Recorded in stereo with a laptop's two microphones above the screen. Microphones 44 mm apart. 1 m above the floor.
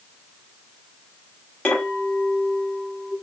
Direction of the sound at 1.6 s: 30° left (ahead or behind).